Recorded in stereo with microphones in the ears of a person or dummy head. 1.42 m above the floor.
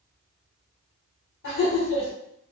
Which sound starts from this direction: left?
Laughter, at 1.4 s.